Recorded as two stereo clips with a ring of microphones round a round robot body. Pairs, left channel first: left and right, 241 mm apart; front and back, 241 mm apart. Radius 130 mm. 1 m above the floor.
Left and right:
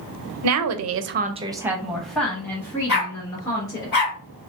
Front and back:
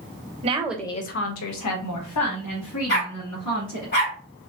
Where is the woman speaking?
115° right, 0.6 m; by 3.9 s 15° left, 2.5 m.